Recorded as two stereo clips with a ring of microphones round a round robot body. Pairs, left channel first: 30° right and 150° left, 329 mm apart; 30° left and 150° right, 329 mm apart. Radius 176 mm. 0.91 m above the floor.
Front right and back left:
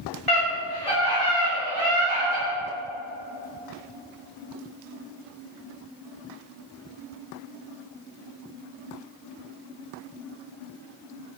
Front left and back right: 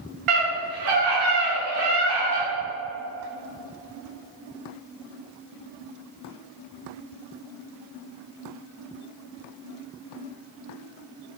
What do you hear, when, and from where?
0.3 s a scream: 120° right, 2.5 m; by 2.5 s 145° right, 3.5 m